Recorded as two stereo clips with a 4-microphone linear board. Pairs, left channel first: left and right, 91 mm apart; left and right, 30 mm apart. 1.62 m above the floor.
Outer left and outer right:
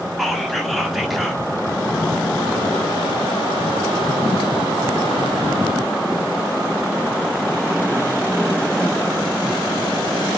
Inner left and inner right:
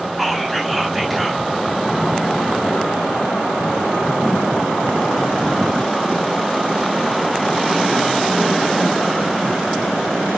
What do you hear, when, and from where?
0.2 s whispering: centre (ahead or behind), 0.6 m